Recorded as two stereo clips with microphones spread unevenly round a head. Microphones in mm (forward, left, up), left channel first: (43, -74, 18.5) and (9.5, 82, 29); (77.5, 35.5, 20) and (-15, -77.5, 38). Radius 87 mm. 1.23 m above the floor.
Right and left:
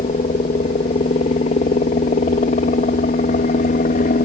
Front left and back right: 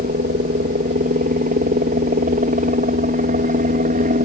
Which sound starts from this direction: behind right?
A helicopter, at 0.0 s.